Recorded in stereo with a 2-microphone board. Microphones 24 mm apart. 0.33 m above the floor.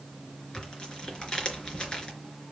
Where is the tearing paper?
40° left (ahead or behind), 3.5 m.